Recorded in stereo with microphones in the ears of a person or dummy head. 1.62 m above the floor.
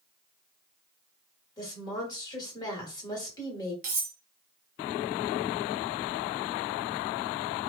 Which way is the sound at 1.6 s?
25° left (ahead or behind).